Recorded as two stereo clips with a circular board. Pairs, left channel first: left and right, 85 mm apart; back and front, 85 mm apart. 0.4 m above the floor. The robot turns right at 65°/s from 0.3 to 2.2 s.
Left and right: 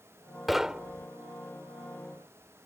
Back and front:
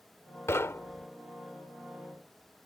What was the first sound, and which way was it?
Knocking, straight behind.